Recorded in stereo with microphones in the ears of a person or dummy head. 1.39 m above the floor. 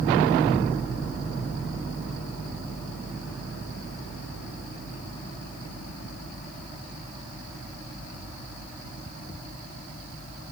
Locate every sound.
Only background noise.